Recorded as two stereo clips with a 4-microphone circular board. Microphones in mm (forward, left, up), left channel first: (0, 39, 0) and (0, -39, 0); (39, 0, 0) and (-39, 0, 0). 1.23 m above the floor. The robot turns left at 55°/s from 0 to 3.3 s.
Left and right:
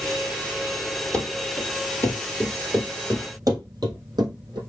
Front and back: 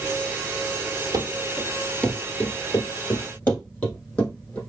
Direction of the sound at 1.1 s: 170° left.